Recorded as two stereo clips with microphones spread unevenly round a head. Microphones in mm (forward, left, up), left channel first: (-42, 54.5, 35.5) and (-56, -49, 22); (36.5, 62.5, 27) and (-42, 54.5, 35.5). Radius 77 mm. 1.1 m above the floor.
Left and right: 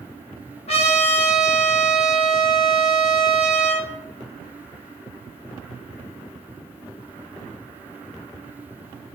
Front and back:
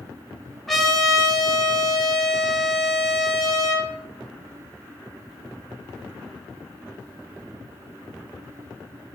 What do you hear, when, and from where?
0.7 s a trumpet: 95° left, 0.8 m